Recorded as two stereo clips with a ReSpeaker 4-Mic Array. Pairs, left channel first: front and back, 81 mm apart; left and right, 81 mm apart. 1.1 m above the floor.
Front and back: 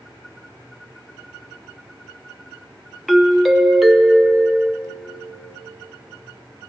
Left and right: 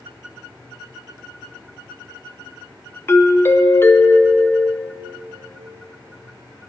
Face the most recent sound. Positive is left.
turn(degrees=95)